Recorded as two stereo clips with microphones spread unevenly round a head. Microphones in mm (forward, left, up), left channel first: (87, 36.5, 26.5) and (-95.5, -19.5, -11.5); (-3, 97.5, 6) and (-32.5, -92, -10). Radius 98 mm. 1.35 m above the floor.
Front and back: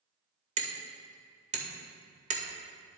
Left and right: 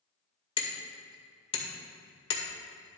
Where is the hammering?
140° left, 2 m.